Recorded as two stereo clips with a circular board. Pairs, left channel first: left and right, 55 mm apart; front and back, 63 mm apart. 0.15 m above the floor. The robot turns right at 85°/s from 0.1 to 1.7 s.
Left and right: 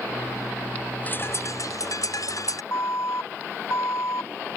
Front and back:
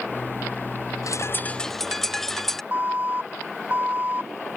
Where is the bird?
30° left; by 2.6 s 85° left.